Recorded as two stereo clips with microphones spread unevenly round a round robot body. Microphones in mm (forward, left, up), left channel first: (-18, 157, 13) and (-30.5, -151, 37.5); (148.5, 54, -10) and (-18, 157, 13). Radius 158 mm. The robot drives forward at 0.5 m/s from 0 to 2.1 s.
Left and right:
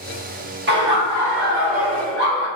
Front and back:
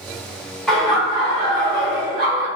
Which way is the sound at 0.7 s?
105° right.